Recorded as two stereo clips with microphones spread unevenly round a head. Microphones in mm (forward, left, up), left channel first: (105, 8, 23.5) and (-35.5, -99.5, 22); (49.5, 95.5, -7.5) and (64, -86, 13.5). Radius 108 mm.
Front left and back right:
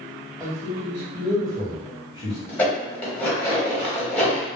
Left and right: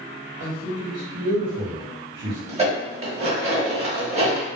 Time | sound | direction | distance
0.4 | a man speaking | 70° right | 1.1 m
2.5 | dishes clattering | 45° right | 1.2 m